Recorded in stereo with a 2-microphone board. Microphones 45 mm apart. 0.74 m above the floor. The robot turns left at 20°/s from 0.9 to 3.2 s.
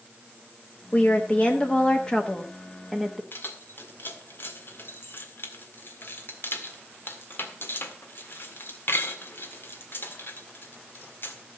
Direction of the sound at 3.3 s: 55° left (ahead or behind).